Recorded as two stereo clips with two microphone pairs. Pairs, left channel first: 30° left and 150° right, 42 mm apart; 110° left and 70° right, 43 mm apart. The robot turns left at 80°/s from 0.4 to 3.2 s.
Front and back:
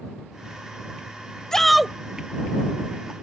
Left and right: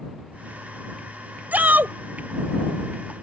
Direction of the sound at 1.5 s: 40° right.